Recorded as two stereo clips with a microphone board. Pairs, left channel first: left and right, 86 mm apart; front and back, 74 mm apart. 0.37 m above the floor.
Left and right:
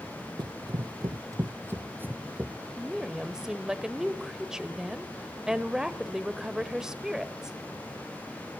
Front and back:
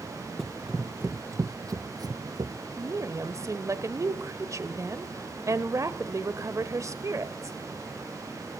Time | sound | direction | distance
0.4 | running footsteps | 85° right | 0.6 m
2.8 | a woman speaking | 170° right | 1.1 m